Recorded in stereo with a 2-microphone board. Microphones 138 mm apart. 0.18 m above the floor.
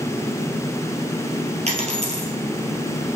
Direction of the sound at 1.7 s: 55° right (ahead or behind).